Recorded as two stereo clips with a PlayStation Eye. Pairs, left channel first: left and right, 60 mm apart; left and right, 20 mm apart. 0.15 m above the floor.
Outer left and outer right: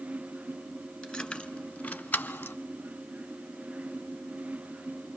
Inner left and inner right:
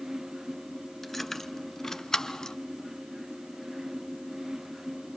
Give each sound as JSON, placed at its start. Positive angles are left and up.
{"t": 1.0, "sound": "keys jangling", "side_deg": 10, "distance_m": 1.4}